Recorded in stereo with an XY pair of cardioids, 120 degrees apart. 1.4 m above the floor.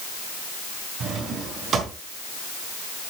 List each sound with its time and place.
1.0 s a drawer: 50° right, 4 m